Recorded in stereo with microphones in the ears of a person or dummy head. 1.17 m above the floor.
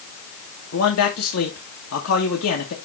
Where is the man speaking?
85° left, 1.3 m.